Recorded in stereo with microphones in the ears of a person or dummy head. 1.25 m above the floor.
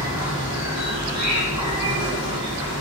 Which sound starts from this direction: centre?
An insect, at 0.0 s.